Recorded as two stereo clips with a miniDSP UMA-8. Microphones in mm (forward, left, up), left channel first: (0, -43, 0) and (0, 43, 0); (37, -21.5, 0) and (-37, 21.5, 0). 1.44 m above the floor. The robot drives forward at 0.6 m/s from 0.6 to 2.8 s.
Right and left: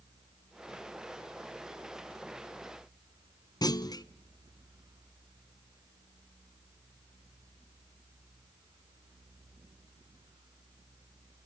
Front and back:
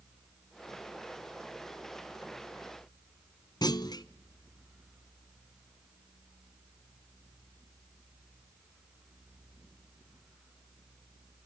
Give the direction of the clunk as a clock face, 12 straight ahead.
2 o'clock.